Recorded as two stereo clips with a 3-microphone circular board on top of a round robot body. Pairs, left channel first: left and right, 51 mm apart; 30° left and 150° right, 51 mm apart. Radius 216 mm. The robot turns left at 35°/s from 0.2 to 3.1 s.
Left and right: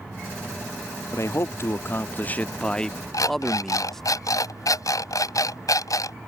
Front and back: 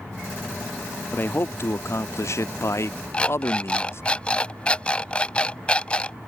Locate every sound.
1.1 s a man speaking: 75° left; by 4.0 s 5° left
3.1 s an alarm clock: 100° left